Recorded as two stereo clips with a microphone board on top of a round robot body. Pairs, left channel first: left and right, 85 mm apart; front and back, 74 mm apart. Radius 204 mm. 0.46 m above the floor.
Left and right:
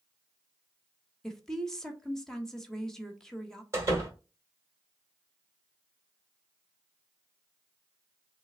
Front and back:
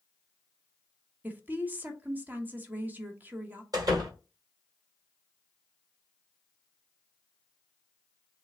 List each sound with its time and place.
1.2 s a woman speaking: 165° left, 1.4 m
3.7 s a door slam: 150° right, 2 m